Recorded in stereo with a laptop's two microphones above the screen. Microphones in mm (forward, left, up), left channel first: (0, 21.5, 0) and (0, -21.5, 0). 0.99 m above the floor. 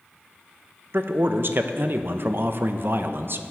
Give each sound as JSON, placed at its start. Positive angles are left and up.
{"t": 0.9, "sound": "a man speaking", "side_deg": -55, "distance_m": 0.5}